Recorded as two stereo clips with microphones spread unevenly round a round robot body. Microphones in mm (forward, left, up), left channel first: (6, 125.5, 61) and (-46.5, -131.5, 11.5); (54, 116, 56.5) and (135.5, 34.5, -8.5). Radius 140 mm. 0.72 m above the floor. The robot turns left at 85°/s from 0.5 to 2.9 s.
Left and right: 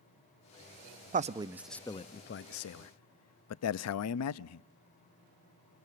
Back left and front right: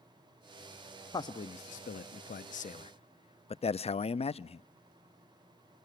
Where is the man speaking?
135° right, 0.6 m; by 4.6 s 75° left, 0.6 m.